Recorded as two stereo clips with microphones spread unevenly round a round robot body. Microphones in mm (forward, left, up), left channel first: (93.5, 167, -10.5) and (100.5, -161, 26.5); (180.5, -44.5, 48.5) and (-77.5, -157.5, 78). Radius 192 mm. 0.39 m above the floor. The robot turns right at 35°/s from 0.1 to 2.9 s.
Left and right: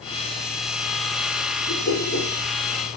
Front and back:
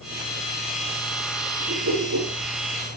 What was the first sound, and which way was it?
A whoosh, 150° left.